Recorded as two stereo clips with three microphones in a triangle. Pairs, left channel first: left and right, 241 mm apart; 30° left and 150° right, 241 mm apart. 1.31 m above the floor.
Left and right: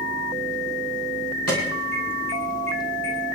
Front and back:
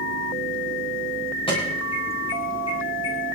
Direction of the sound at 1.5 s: 95° left.